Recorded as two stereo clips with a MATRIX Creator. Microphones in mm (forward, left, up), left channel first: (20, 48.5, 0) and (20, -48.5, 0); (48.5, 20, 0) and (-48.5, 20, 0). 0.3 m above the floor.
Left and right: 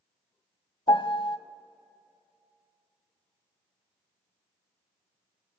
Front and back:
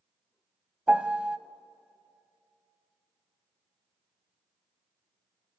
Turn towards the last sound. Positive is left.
turn(degrees=100)